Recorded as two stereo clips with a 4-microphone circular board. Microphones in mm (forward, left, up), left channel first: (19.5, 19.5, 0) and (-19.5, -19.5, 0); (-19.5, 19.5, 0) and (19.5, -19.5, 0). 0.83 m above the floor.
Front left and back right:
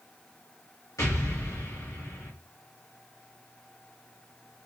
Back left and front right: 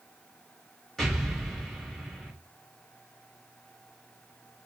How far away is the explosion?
About 1.6 m.